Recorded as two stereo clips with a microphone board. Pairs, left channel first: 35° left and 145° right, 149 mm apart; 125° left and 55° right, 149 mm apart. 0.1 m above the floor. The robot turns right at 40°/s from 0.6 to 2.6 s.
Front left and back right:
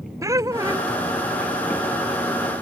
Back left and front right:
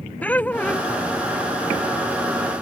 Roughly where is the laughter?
Behind.